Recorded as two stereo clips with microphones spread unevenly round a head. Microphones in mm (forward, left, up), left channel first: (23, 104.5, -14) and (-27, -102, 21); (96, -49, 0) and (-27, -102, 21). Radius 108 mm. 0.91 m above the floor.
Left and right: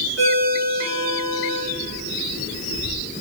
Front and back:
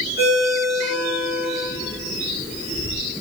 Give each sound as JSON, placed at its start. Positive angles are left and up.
{"t": 0.2, "sound": "a ringtone", "azimuth_deg": 55, "distance_m": 5.5}